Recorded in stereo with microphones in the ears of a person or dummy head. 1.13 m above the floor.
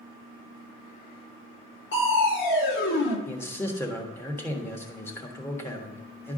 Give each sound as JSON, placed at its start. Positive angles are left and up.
{"t": 1.9, "sound": "crushing", "side_deg": 70, "distance_m": 1.9}
{"t": 3.3, "sound": "a man speaking", "side_deg": 15, "distance_m": 1.5}